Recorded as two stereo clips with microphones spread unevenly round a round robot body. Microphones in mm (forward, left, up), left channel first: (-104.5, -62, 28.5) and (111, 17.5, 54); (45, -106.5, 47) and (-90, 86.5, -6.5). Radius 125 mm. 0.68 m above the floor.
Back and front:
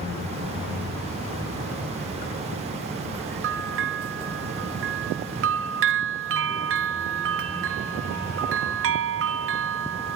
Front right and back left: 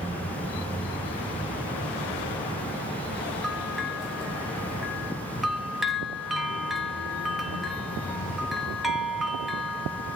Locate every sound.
3.4 s a bell: 45° left, 0.8 m